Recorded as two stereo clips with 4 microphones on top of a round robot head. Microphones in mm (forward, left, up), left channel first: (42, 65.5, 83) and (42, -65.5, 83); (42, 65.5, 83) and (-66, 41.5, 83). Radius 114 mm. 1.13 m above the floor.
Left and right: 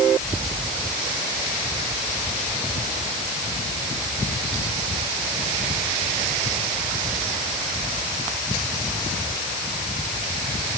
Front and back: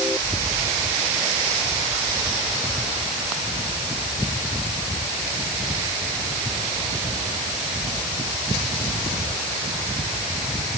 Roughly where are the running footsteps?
I don't hear running footsteps.